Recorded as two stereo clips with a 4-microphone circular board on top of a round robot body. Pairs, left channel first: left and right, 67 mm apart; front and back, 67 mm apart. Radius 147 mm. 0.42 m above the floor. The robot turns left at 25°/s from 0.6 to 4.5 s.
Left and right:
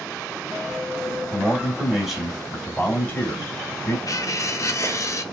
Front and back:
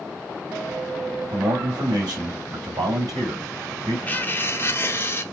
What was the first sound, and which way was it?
A man speaking, 155° right.